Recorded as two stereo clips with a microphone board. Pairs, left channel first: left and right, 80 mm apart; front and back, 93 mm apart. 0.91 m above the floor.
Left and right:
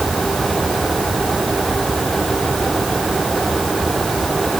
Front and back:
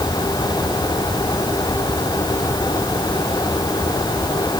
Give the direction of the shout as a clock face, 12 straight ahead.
I don't hear a shout.